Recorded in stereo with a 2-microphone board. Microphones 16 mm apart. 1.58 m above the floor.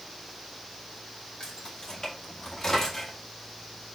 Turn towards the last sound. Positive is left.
turn(degrees=25)  # may be behind; listen again after turning